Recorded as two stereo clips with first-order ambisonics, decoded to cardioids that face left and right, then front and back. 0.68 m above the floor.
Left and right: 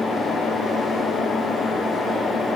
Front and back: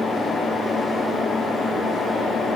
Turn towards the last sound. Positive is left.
No sound to turn to.